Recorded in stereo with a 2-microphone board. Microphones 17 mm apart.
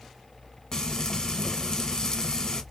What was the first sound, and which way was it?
Frying, 35° left (ahead or behind).